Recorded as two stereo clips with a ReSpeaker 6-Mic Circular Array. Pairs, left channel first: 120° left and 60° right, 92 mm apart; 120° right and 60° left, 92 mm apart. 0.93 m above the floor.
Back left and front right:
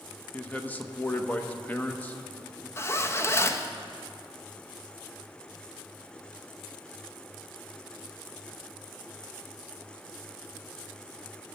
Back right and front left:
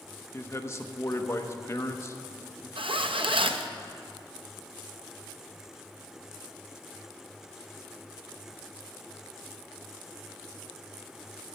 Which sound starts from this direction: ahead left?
A zipper, at 2.8 s.